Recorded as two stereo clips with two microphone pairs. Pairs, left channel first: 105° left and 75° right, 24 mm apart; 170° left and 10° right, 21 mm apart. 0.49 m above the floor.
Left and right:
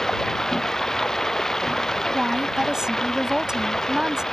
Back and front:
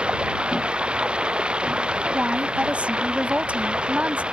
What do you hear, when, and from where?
0.0 s running water: 35° left
2.1 s a woman speaking: 10° right